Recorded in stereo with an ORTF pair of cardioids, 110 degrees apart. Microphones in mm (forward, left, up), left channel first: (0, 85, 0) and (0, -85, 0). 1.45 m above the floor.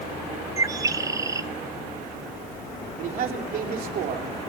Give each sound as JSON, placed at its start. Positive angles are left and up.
{"t": 0.6, "sound": "a bird", "azimuth_deg": -20, "distance_m": 0.7}
{"t": 3.0, "sound": "a man speaking", "azimuth_deg": -60, "distance_m": 3.0}